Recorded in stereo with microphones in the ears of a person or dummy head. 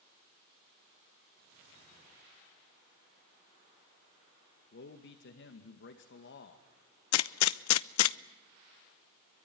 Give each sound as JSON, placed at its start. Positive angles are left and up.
{"t": 4.7, "sound": "a man speaking", "side_deg": 55, "distance_m": 1.9}
{"t": 7.1, "sound": "a gunshot", "side_deg": 75, "distance_m": 0.6}